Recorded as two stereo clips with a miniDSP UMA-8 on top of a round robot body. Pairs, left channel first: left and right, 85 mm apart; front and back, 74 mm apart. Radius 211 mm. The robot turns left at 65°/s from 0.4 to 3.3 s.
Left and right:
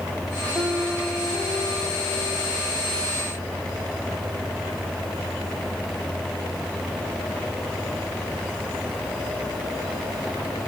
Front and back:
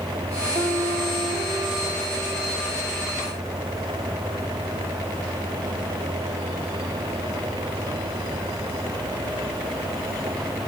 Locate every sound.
0.6 s a piano: 160° right, 4.5 m; by 2.6 s 65° left, 4.5 m